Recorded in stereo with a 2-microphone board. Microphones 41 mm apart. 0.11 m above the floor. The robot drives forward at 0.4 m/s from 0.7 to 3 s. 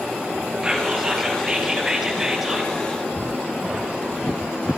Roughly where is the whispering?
Centre.